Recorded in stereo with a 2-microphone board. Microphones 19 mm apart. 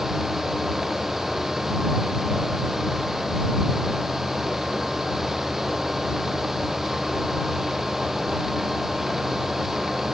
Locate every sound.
Only background noise.